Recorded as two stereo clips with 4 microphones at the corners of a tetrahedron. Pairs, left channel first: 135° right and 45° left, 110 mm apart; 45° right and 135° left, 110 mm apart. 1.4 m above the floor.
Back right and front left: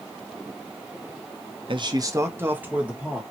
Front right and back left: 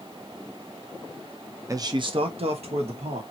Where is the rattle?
I don't hear a rattle.